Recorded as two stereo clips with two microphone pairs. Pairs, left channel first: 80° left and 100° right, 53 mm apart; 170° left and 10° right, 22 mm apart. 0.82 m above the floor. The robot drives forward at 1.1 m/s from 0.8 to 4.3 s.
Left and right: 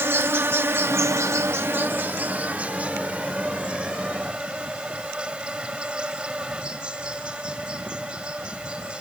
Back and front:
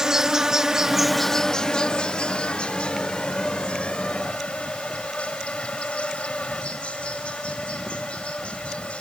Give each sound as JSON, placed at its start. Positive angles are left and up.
{"t": 0.0, "sound": "an insect", "azimuth_deg": -65}